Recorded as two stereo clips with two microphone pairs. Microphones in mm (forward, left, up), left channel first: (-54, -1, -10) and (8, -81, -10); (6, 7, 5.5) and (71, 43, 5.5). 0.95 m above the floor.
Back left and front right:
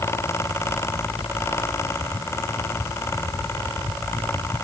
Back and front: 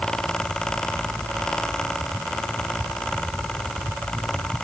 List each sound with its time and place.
Only background noise.